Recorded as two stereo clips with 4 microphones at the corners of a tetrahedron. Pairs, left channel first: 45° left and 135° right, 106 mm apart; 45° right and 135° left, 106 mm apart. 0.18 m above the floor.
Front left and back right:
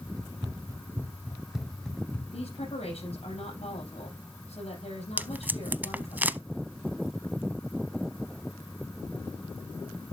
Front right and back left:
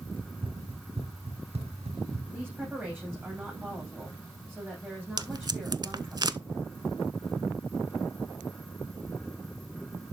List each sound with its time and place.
0.2 s running footsteps: 175° left, 2 m; by 2.2 s 125° left, 2 m
2.3 s a woman speaking: 60° left, 6 m
5.2 s tape being pulled: 155° left, 0.5 m